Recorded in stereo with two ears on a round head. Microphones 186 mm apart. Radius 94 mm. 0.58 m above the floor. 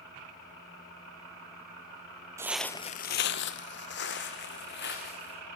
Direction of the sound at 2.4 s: 15° right (ahead or behind).